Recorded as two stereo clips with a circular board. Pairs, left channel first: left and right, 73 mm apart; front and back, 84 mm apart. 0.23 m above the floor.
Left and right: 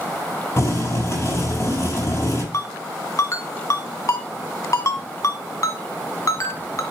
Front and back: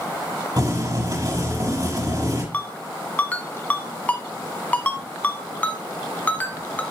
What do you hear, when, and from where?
0.6 s boiling: 140° left, 6.5 m
2.5 s a ringtone: 65° left, 1.3 m